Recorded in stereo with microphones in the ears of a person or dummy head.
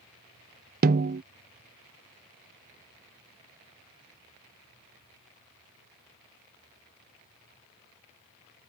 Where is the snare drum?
50° right (ahead or behind).